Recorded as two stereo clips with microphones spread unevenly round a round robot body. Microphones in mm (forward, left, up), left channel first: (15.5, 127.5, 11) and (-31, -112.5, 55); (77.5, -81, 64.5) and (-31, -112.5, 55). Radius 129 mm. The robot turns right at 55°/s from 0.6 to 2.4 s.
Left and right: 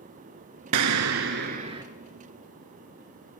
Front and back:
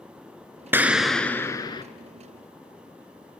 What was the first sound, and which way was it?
An explosion, 90° right.